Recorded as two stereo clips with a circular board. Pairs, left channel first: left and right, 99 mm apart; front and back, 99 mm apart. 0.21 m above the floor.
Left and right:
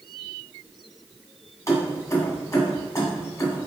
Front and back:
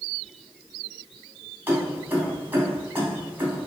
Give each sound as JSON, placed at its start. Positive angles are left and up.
{"t": 1.7, "sound": "keys jangling", "azimuth_deg": 125, "distance_m": 0.9}